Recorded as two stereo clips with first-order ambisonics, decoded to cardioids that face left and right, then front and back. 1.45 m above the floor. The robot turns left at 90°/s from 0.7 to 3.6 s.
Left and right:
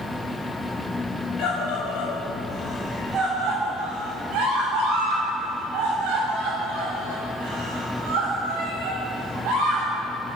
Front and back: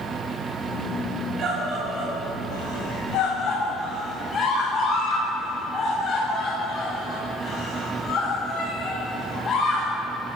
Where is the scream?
130° left, 7 m; by 9.9 s 70° right, 7 m.